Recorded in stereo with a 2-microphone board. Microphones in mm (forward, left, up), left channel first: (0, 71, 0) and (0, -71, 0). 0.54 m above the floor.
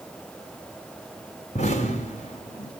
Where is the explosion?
55° left (ahead or behind), 2.5 m.